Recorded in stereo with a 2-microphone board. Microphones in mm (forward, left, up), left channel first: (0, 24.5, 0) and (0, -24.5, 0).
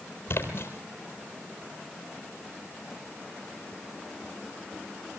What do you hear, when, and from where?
0.3 s a splash: 50° left (ahead or behind), 4 m